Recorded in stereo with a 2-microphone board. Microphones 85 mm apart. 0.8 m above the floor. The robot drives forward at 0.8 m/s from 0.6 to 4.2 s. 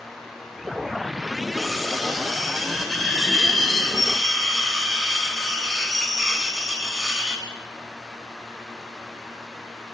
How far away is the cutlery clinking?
About 2 m.